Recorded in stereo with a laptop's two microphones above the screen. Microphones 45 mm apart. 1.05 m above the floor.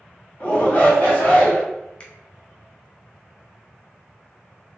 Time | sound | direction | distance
0.4 | a shout | 40° left (ahead or behind) | 0.9 m
2.0 | a finger snap | 30° left (ahead or behind) | 0.5 m